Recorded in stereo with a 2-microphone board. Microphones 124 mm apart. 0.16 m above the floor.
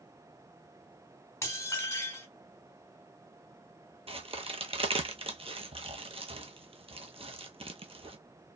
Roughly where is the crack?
Right.